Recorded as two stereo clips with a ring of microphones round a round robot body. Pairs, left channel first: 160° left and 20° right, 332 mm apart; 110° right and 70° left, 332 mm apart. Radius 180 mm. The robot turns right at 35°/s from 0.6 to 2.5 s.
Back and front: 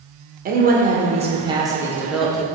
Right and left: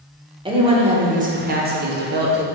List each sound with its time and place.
0.5 s a woman speaking: 10° left, 1.5 m; by 2.4 s 70° left, 1.5 m